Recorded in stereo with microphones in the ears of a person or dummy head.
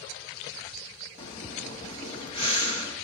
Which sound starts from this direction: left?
Breathing, at 1.2 s.